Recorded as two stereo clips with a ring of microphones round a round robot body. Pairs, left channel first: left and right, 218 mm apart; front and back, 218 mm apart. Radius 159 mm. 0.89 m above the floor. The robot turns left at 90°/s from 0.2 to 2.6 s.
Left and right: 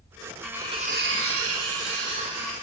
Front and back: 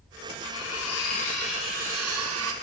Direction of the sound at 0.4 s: 5° left.